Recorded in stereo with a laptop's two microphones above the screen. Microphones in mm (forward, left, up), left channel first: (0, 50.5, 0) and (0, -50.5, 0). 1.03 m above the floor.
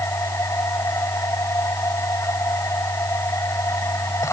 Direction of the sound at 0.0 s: 30° left (ahead or behind).